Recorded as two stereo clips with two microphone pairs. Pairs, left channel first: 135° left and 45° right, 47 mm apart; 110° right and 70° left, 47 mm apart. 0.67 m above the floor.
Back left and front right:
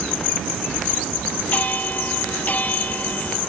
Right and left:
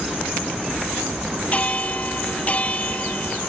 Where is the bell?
170° right.